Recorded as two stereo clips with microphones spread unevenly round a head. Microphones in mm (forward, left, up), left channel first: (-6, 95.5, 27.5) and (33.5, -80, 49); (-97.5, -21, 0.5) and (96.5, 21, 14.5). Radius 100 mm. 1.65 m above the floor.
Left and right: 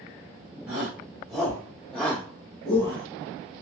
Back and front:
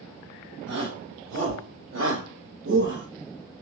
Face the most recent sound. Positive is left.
turn(degrees=45)